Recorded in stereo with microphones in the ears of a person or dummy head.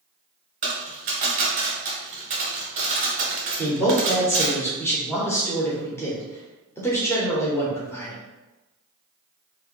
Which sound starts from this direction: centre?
A man speaking, at 3.6 s.